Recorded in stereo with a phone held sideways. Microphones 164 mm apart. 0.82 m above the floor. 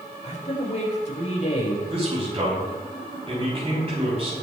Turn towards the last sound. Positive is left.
turn(degrees=-40)  # may be behind; listen again after turning